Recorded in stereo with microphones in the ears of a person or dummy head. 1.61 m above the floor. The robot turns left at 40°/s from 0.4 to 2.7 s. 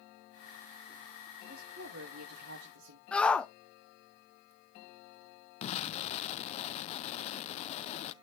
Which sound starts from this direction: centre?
A shout, at 3.1 s.